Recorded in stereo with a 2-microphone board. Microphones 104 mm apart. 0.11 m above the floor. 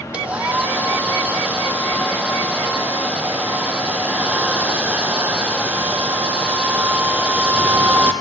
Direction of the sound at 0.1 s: 10° right (ahead or behind).